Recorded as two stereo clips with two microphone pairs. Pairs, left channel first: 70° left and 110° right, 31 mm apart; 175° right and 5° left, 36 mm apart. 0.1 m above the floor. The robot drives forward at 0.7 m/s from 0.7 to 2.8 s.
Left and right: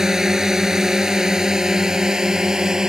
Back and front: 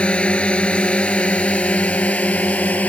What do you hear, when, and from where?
0.0 s a drone: 170° right; by 2.9 s 175° right